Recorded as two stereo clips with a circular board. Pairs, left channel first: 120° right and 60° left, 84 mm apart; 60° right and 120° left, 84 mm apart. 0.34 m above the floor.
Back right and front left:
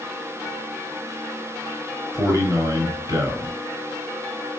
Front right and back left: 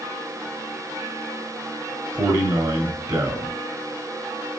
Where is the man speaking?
100° left, 1.4 m.